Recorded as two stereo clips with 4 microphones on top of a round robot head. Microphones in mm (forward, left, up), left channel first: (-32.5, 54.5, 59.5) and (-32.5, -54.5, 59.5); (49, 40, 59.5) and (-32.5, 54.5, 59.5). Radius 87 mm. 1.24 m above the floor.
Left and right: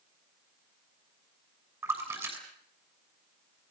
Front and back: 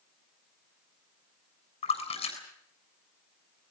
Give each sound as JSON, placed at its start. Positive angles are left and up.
{"t": 1.8, "sound": "a splash", "azimuth_deg": -20, "distance_m": 7.0}